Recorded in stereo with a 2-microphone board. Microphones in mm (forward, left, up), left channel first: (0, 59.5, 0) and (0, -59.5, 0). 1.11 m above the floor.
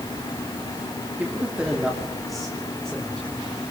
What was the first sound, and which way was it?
A man speaking, 15° right (ahead or behind).